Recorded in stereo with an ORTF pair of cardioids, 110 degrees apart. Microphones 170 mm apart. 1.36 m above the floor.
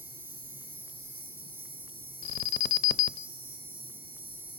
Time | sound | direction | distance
0.0 | an insect | 10° right | 0.8 m
2.2 | an alarm | 65° left | 0.5 m